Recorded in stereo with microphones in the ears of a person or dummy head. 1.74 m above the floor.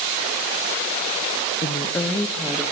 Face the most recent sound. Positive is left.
turn(degrees=0)  # may be behind; listen again after turning